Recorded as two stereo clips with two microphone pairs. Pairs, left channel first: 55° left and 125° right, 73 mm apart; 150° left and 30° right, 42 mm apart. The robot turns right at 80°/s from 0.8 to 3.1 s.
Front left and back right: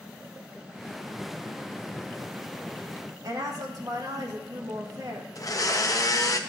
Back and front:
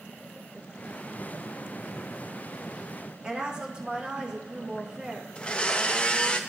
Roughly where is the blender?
Left.